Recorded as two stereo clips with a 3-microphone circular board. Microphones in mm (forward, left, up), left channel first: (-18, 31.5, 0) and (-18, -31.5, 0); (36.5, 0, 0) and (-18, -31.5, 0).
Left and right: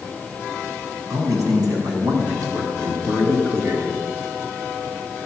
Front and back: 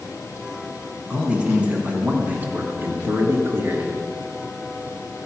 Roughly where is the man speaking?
Right.